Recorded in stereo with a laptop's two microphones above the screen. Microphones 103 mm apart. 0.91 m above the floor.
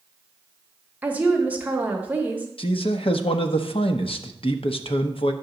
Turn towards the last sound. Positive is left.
turn(degrees=60)  # may be behind; listen again after turning